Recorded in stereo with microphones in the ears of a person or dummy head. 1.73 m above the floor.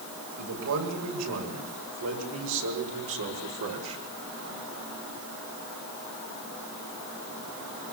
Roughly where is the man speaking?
Right.